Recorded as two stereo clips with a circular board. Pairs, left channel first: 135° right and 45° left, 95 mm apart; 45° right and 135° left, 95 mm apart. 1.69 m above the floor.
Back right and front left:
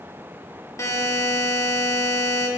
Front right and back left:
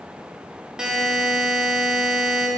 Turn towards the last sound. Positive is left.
turn(degrees=-150)